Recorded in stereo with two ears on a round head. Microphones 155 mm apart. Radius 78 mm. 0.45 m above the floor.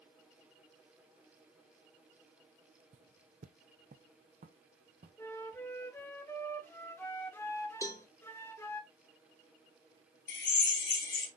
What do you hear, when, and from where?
2.9 s footsteps: 40° right (ahead or behind), 0.7 m; by 6.1 s 45° right (ahead or behind), 2.5 m
5.2 s a flute: 10° left (ahead or behind), 1.1 m
7.8 s a cowbell: 20° left (ahead or behind), 1.3 m
10.3 s a drill: 65° left (ahead or behind), 3 m